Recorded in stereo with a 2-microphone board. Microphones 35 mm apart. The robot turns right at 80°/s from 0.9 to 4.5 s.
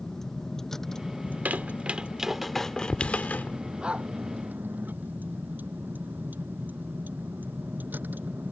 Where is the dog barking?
25° right (ahead or behind); by 4.1 s 50° right (ahead or behind).